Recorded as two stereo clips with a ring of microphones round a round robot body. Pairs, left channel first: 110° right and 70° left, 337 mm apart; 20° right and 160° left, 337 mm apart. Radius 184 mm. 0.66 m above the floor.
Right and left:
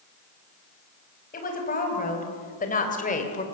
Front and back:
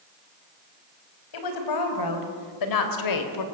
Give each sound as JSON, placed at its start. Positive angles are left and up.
{"t": 1.3, "sound": "a woman speaking", "azimuth_deg": -45, "distance_m": 4.5}